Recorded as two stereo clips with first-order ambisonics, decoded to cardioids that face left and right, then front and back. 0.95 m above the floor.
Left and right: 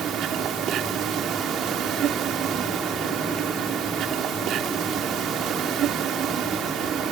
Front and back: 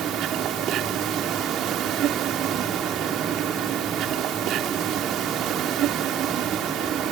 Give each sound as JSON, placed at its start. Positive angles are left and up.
{"t": 0.0, "sound": "an insect", "azimuth_deg": -135}